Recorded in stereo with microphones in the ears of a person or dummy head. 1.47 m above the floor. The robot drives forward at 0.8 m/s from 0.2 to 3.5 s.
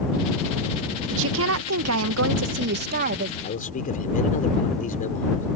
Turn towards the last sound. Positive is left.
turn(degrees=40)  # may be behind; listen again after turning